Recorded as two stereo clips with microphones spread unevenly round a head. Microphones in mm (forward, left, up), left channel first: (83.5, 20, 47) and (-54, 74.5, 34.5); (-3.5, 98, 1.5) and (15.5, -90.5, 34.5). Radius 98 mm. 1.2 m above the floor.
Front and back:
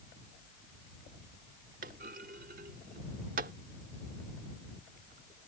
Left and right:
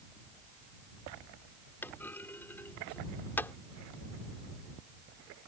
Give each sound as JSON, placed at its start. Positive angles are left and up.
{"t": 1.8, "sound": "a clunk", "azimuth_deg": -175}